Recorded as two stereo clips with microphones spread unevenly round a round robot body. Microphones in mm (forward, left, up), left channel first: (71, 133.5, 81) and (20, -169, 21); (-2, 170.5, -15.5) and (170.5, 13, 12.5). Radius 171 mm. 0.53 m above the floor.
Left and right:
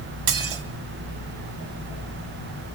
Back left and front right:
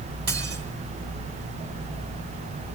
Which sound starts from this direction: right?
Dishes clattering, at 0.3 s.